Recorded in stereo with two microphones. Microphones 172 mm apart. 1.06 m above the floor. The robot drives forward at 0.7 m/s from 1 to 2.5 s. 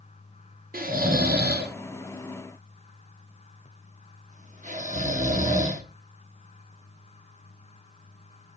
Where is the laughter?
I don't hear laughter.